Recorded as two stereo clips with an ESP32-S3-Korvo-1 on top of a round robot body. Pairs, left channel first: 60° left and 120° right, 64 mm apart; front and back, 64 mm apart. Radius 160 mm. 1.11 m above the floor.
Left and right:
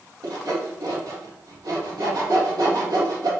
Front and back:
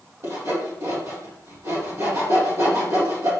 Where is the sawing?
135° right, 2.5 m.